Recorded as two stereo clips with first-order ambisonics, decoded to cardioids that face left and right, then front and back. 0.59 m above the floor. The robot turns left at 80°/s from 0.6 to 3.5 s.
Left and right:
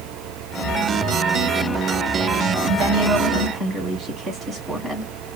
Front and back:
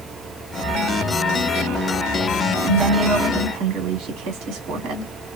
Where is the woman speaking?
105° right, 2 m; by 5.1 s 170° right, 2 m.